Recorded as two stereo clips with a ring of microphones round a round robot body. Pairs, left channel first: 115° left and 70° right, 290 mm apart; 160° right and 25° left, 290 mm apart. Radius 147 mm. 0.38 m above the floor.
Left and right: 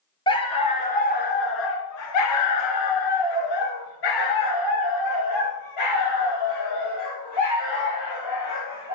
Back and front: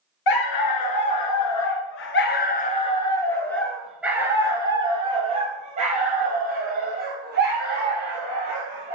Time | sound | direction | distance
0.3 | a dog barking | 170° right | 1.6 m